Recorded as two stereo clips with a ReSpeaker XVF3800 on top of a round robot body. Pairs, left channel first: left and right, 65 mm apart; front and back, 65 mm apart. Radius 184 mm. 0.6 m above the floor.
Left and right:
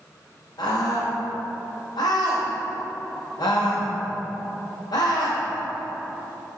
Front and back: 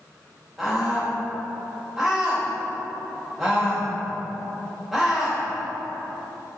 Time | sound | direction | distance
0.6 | a scream | 100° left | 3.5 m